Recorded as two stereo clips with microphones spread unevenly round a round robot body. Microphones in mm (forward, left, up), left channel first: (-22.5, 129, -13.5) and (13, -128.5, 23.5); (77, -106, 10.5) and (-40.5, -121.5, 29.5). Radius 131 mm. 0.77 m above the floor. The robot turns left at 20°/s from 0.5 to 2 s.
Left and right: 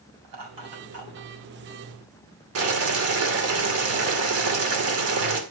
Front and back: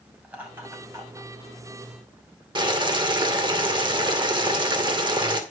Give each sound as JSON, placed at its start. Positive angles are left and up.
{"t": 0.2, "sound": "laughter", "azimuth_deg": -95, "distance_m": 6.0}
{"t": 2.5, "sound": "boiling", "azimuth_deg": -120, "distance_m": 2.5}